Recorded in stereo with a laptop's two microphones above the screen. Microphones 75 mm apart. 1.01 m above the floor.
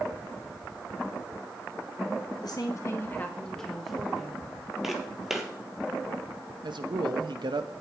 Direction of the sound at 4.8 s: 5° right (ahead or behind).